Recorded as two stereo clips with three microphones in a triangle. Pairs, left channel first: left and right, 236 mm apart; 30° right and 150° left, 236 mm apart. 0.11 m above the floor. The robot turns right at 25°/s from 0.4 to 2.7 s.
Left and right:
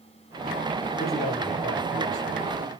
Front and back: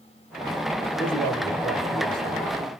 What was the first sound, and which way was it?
A man speaking, 50° left.